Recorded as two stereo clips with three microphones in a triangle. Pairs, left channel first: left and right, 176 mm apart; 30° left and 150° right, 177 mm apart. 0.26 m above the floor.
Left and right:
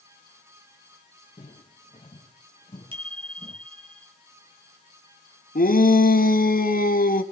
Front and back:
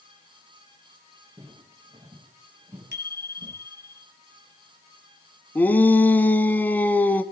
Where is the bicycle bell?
150° right, 3.5 m.